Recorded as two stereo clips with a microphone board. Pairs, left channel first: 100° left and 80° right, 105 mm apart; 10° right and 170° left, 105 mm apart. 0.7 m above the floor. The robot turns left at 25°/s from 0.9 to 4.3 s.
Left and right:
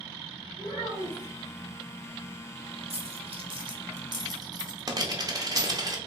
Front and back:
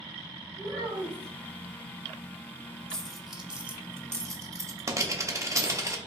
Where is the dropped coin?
95° right, 0.6 m; by 6.0 s 130° right, 0.6 m.